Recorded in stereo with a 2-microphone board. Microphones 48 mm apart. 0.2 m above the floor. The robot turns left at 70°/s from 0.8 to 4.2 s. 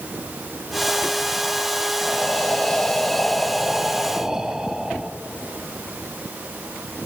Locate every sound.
2.0 s breathing: 15° left (ahead or behind), 0.7 m; by 5.1 s 10° right (ahead or behind), 0.7 m